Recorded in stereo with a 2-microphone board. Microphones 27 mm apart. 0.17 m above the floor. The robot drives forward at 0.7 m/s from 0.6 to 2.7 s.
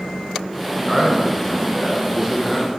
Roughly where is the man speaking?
Centre.